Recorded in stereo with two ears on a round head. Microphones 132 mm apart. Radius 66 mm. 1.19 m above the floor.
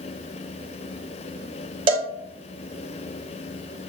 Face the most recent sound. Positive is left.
turn(degrees=-35)  # may be behind; listen again after turning